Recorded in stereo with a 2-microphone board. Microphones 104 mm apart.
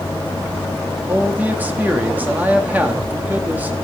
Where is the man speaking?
15° right (ahead or behind), 2.5 m.